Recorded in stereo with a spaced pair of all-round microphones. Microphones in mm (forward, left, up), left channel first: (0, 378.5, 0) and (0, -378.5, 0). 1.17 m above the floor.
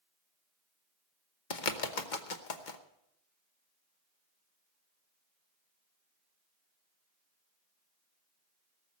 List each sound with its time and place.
1.5 s a bird: 80° left, 1.2 m